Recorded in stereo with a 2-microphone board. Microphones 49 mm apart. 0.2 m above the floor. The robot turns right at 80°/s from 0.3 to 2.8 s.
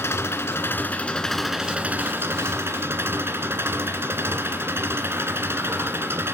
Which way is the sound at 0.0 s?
90° left.